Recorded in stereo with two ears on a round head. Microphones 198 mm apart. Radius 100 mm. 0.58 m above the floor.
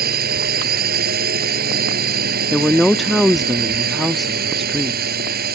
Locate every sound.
0.0 s a drone: 40° right (ahead or behind)
2.5 s a woman speaking: centre (ahead or behind)